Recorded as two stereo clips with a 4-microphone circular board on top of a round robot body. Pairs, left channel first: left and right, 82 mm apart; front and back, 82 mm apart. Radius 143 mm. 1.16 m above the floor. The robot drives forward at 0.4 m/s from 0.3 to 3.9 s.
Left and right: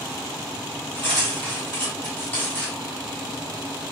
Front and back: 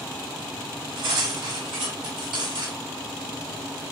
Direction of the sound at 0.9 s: 160° left.